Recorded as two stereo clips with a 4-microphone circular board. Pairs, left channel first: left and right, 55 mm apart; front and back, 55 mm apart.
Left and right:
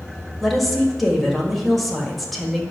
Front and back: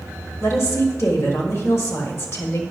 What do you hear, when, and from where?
0.4 s a woman speaking: straight ahead, 1.5 m